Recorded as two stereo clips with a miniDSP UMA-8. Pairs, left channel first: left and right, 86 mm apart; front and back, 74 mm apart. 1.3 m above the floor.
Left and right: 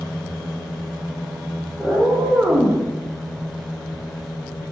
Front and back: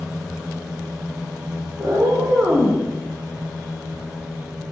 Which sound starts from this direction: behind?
A cat meowing, at 1.8 s.